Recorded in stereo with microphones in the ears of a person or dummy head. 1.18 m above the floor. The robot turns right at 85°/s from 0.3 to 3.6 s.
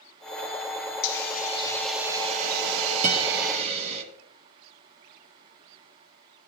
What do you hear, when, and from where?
1.0 s a hiss: 105° left, 1.6 m; by 4.0 s 35° right, 1.6 m
3.0 s a guitar: 40° right (ahead or behind), 1.3 m; by 3.3 s 30° right (ahead or behind), 1.3 m